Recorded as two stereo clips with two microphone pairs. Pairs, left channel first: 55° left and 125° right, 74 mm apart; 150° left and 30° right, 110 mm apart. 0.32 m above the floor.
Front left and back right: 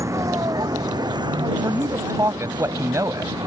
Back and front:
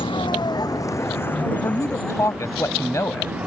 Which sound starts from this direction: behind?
A vehicle, at 0.0 s.